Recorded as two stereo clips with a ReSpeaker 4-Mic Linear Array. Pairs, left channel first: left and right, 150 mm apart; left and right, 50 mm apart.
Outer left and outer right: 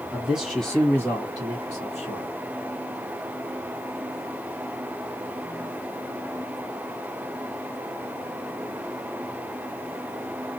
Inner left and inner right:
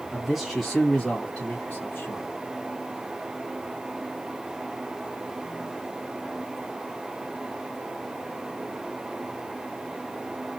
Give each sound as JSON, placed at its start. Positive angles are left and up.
{"t": 0.1, "sound": "a man speaking", "side_deg": -10, "distance_m": 1.3}